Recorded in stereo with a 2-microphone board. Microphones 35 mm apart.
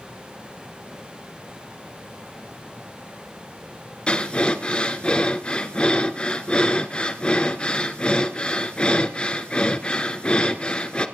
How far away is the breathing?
About 1.3 m.